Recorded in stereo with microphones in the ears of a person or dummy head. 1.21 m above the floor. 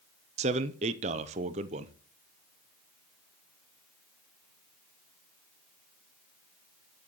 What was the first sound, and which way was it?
A man speaking, 35° right (ahead or behind).